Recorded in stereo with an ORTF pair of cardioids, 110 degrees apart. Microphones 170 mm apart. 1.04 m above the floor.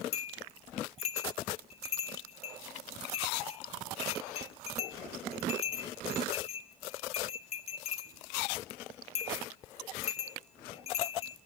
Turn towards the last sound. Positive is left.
turn(degrees=40)